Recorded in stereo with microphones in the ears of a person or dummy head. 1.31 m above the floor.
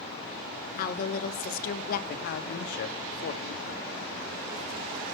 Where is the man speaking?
55° left (ahead or behind), 1.2 m.